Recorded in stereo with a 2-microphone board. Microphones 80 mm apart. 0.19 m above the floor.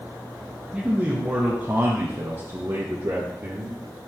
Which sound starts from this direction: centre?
A man speaking, at 0.7 s.